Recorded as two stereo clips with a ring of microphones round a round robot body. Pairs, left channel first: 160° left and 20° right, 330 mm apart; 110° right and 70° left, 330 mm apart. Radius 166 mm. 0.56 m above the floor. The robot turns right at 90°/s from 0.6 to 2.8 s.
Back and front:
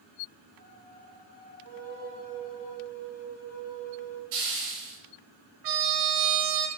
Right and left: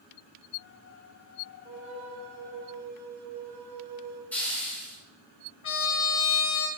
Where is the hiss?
25° right, 3.5 m.